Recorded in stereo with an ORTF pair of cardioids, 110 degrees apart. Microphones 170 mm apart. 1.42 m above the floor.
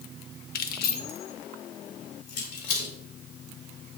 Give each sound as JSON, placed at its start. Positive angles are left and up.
{"t": 0.6, "sound": "keys jangling", "azimuth_deg": 65, "distance_m": 1.0}